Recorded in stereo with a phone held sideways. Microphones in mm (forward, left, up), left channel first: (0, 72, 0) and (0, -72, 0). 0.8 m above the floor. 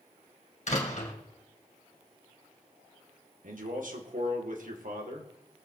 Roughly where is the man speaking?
Right.